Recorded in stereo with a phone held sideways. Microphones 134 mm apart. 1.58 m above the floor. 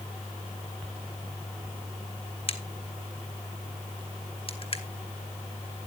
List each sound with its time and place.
2.5 s a crack: 40° left (ahead or behind), 1.3 m